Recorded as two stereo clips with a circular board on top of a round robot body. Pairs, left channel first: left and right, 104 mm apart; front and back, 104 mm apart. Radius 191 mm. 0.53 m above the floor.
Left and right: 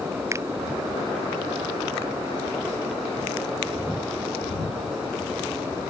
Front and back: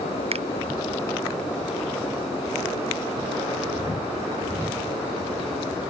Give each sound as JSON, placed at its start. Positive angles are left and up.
{"t": 0.3, "sound": "a finger snap", "azimuth_deg": -155}